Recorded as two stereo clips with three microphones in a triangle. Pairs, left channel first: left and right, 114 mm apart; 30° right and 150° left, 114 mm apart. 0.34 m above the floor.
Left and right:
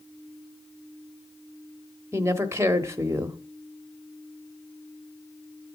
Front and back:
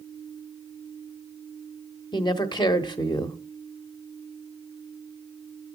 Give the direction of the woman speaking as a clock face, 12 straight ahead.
1 o'clock.